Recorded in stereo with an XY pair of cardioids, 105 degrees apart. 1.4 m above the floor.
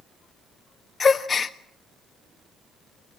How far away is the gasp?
About 1.4 m.